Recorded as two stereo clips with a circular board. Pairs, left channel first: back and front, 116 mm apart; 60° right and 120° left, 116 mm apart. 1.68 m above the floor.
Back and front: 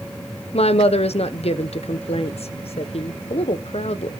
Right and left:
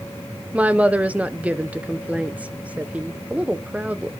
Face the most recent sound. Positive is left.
turn(degrees=-165)